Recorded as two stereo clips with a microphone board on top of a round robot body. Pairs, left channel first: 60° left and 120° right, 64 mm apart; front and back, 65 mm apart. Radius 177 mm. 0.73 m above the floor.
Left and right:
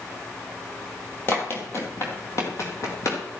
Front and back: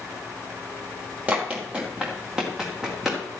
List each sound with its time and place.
1.3 s running footsteps: 110° left, 1.3 m; by 3.2 s 95° left, 2.5 m